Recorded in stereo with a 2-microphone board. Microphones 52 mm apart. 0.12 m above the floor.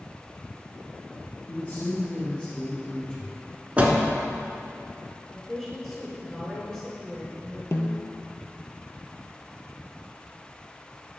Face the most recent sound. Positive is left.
turn(degrees=55)  # may be behind; listen again after turning